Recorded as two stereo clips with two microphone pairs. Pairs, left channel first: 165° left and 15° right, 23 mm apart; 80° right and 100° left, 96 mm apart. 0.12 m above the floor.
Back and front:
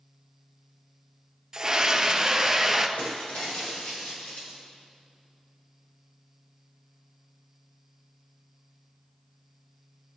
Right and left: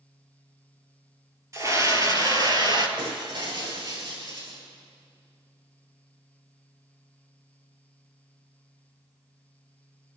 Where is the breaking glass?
140° left, 6 m.